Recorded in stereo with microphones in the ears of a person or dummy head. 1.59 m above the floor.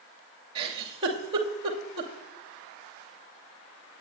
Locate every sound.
0.6 s a giggle: 30° right (ahead or behind), 2.5 m